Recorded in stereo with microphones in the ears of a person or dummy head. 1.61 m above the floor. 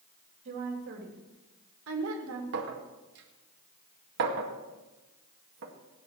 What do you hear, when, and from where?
0.5 s a woman speaking: 50° right (ahead or behind), 4 m; by 2.4 s 85° right, 2.5 m
2.5 s a clink: 55° right (ahead or behind), 2 m